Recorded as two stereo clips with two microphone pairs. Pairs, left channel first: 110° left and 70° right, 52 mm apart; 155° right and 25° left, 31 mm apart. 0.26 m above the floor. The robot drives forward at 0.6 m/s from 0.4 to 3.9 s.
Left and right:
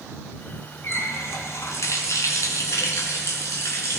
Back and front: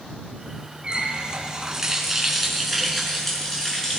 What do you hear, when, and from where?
0.8 s a running tap: 80° left, 1.7 m; by 4.0 s 135° left, 2 m